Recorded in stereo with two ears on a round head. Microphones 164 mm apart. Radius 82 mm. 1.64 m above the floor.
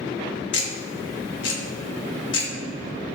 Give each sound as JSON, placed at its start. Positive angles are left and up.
{"t": 0.5, "sound": "ticking", "side_deg": 65, "distance_m": 1.7}